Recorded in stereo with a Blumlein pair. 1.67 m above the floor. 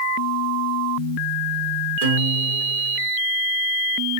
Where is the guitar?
50° right, 2 m.